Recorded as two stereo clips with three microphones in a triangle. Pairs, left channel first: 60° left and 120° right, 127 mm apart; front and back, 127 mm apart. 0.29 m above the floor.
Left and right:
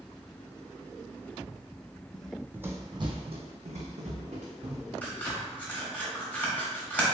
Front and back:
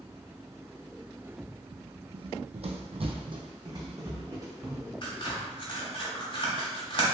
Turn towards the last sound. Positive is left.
turn(degrees=-10)